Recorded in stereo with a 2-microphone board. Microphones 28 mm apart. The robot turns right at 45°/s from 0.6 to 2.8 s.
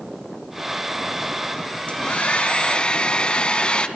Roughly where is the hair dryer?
Left.